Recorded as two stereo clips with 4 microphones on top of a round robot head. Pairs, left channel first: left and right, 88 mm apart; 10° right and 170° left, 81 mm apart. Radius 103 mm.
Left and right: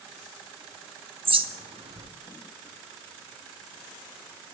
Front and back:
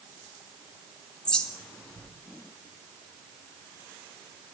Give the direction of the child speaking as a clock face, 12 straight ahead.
No child speaking in this recording.